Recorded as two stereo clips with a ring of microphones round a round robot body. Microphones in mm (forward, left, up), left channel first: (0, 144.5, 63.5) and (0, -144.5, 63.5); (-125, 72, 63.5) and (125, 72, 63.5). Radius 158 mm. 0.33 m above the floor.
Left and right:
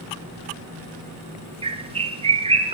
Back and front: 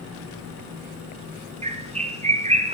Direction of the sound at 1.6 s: 40° right.